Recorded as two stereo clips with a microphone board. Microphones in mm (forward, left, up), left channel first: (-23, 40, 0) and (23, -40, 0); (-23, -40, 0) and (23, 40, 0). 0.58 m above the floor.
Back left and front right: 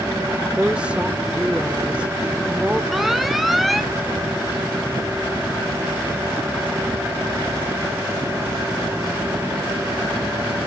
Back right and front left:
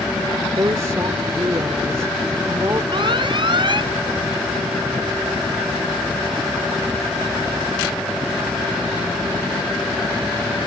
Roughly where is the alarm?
Ahead left.